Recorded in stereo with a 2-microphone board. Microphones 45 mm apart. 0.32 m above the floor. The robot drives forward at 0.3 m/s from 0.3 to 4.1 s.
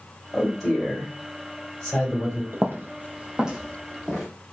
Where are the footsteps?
65° right (ahead or behind), 0.5 m; by 4.3 s centre (ahead or behind), 1.6 m.